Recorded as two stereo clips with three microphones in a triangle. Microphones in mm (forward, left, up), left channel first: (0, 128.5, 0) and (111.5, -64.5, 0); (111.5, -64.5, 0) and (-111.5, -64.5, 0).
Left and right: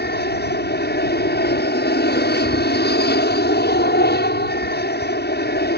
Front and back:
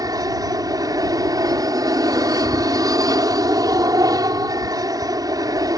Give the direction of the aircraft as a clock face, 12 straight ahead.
8 o'clock.